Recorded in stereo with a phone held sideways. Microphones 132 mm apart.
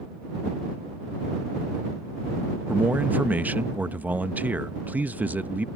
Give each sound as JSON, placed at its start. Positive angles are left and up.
{"t": 2.7, "sound": "a man speaking", "side_deg": -10}